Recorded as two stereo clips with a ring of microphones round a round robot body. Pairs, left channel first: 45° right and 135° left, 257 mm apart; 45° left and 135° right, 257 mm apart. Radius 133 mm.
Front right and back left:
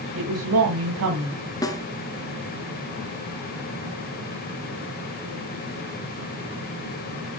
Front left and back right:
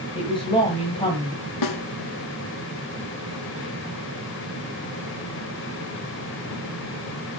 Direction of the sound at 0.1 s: 115° left.